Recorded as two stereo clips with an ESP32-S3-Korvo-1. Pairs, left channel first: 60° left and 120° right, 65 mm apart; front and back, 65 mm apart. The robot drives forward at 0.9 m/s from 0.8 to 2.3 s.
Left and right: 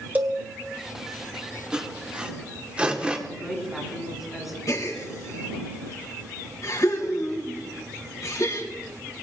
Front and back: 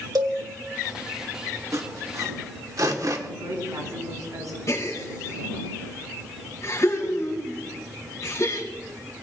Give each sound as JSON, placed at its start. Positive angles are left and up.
{"t": 0.1, "sound": "a cowbell", "azimuth_deg": 175, "distance_m": 2.0}
{"t": 1.7, "sound": "sawing", "azimuth_deg": 170, "distance_m": 1.8}
{"t": 3.3, "sound": "a woman speaking", "azimuth_deg": 155, "distance_m": 7.5}
{"t": 4.7, "sound": "a gasp", "azimuth_deg": 35, "distance_m": 3.5}